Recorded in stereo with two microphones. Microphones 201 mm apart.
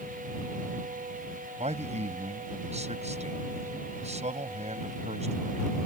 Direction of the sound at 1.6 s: 35° right (ahead or behind).